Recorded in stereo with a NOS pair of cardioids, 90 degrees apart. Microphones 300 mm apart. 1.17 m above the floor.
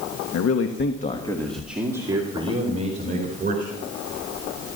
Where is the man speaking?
60° left, 1.5 m; by 3.7 s 30° right, 4.5 m.